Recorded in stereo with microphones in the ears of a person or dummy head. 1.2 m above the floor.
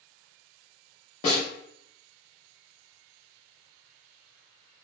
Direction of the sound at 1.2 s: 30° left (ahead or behind).